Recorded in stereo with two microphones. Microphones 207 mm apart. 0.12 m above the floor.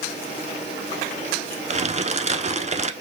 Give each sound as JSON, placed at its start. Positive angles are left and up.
{"t": 1.7, "sound": "crumpling", "side_deg": -35, "distance_m": 0.9}